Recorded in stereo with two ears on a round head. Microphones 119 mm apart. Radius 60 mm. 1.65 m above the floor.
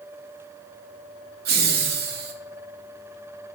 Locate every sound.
1.4 s laughter: 85° right, 1.0 m